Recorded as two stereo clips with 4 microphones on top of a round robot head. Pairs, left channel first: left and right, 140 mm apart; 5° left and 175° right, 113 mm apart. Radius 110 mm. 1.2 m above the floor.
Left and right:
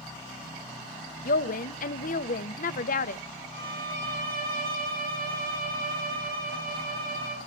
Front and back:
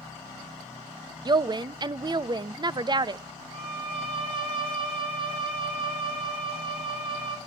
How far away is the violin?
About 3 m.